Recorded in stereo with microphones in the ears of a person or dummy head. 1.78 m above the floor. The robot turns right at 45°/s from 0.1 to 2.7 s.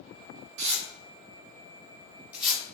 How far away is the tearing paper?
About 1.1 m.